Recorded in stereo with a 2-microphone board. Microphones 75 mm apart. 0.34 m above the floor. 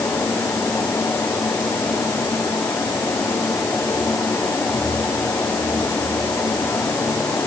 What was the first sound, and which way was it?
Only background noise.